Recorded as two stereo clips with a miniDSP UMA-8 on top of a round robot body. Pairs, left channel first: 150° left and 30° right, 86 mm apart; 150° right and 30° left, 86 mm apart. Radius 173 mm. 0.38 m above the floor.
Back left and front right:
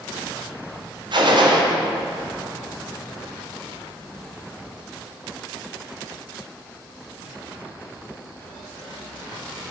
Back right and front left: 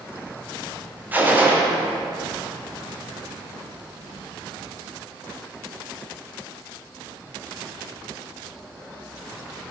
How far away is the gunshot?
About 1.3 m.